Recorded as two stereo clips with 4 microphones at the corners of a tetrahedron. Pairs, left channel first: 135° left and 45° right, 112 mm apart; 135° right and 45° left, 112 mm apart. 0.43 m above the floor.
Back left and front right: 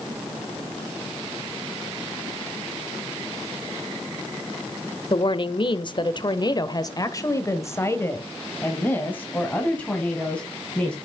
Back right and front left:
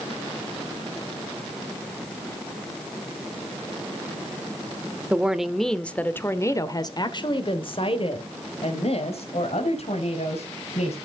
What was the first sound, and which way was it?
A woman speaking, 120° left.